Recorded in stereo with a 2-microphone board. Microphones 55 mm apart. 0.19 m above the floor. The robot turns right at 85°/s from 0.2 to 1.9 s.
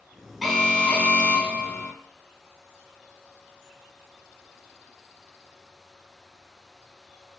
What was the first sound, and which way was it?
An alarm, 5° right.